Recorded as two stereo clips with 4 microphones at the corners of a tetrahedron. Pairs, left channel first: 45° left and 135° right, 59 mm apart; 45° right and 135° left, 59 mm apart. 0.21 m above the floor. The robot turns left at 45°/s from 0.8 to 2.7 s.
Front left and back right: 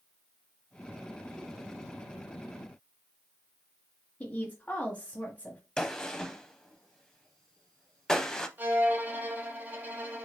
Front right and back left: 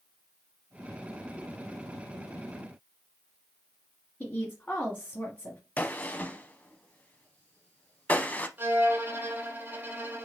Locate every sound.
4.2 s a woman speaking: 5° right, 1.2 m
5.8 s a gunshot: 25° right, 0.5 m
8.6 s a violin: straight behind, 1.3 m